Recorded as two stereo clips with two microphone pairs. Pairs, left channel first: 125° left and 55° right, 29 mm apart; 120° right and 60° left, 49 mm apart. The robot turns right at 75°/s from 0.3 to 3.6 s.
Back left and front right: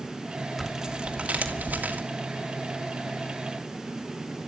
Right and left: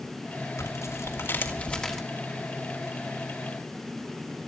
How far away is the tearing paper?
About 2.5 m.